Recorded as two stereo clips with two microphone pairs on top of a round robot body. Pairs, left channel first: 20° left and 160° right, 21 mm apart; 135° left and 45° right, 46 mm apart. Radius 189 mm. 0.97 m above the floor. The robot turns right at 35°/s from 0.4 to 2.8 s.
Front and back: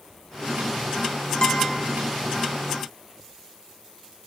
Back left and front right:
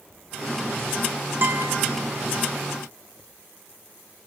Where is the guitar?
20° right, 1.2 m; by 1.8 s 5° right, 1.2 m.